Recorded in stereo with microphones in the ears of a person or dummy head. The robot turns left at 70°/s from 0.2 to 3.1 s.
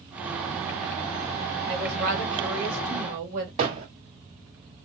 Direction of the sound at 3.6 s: 35° right (ahead or behind).